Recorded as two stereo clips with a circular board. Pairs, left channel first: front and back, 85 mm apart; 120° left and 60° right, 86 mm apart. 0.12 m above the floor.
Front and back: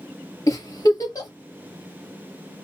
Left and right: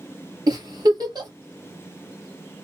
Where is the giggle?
40° right, 2 m.